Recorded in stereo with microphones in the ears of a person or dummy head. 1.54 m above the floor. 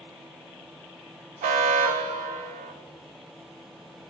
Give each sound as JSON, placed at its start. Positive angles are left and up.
{"t": 1.4, "sound": "an alarm", "side_deg": -35, "distance_m": 1.1}